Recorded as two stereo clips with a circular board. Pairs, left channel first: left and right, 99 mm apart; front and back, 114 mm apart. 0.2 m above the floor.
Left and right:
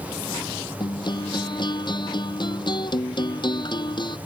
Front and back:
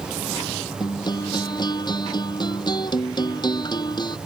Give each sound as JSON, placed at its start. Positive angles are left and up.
{"t": 0.8, "sound": "a guitar", "azimuth_deg": 50}